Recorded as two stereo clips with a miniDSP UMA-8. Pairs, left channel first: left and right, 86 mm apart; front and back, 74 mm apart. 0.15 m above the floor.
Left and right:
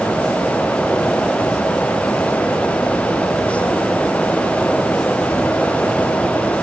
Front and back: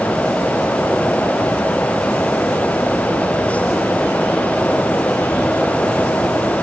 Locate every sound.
Only background noise.